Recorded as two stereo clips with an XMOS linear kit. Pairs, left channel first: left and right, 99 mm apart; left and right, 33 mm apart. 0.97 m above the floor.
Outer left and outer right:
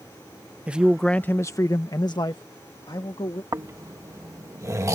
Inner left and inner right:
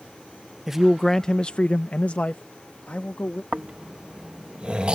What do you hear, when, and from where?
0.7 s a man speaking: 15° right (ahead or behind); by 3.4 s 50° left (ahead or behind)
3.5 s snoring: 30° right (ahead or behind)